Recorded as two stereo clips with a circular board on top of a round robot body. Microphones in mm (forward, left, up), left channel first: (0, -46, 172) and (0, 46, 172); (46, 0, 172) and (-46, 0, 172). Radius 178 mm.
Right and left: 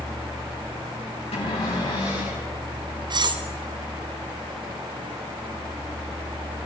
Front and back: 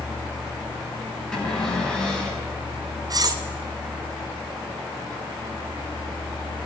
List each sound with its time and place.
1.3 s a cupboard door: 85° right, 7 m
3.1 s cutlery clinking: 130° left, 0.8 m